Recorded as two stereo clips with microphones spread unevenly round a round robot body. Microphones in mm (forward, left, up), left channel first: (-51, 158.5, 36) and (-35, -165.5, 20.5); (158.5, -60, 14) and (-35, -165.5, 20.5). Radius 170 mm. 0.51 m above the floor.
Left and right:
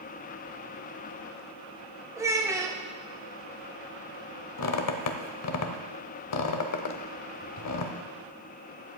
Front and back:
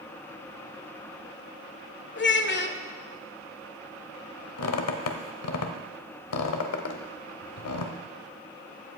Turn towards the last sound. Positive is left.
turn(degrees=45)